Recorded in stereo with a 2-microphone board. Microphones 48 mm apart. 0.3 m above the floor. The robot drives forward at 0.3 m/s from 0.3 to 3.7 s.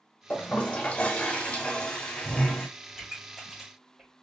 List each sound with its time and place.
0.3 s a toilet flushing: 35° left (ahead or behind), 0.8 m; by 2.7 s 20° left (ahead or behind), 1.3 m
2.9 s a pop: 5° right (ahead or behind), 1.6 m